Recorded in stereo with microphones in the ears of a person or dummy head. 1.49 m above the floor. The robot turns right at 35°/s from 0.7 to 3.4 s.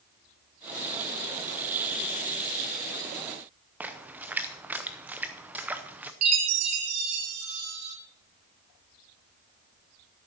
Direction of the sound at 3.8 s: 10° right (ahead or behind).